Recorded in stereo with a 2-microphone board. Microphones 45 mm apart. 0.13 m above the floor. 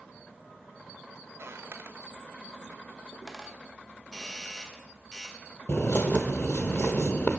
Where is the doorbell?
20° left (ahead or behind), 1.8 m.